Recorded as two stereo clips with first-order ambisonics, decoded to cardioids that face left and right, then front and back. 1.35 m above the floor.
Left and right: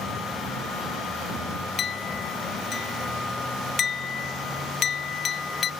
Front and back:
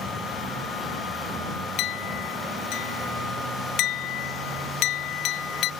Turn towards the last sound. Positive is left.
turn(degrees=30)